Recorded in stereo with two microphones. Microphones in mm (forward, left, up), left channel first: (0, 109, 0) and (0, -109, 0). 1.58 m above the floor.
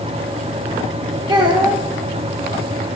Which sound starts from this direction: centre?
A child speaking, at 1.3 s.